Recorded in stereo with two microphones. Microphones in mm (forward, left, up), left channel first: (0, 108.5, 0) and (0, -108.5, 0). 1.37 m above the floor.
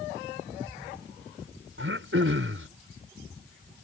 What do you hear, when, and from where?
1.8 s throat clearing: 70° right (ahead or behind)